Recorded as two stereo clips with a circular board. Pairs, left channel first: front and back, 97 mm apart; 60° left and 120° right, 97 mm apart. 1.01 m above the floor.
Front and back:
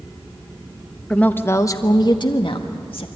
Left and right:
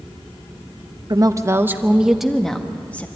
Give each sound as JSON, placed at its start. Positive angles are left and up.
{"t": 1.1, "sound": "a woman speaking", "azimuth_deg": -80, "distance_m": 1.1}